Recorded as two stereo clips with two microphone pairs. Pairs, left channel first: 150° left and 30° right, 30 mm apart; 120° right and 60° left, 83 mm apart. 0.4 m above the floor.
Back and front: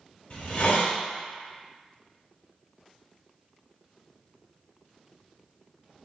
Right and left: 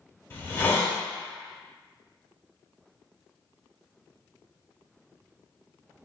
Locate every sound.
0.3 s a hiss: straight behind, 0.8 m